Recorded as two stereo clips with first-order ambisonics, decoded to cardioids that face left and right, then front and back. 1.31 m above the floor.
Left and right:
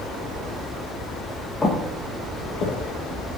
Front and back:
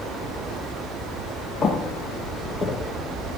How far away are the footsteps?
About 1.4 m.